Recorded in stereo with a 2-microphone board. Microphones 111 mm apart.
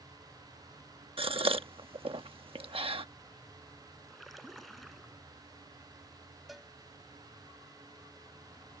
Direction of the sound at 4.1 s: Centre (ahead or behind).